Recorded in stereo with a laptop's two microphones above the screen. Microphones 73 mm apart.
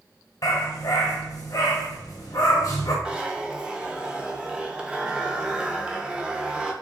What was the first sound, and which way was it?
A dog barking, 50° left (ahead or behind).